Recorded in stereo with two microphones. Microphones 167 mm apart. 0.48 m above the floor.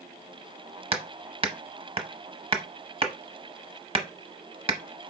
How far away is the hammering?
About 0.8 m.